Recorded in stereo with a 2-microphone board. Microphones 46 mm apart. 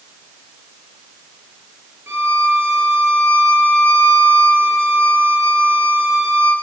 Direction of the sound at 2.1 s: 65° right (ahead or behind).